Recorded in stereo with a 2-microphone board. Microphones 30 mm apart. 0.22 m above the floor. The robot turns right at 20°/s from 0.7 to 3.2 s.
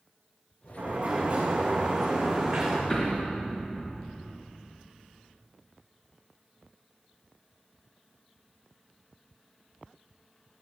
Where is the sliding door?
50° right, 5 m; by 2.8 s 10° right, 5 m.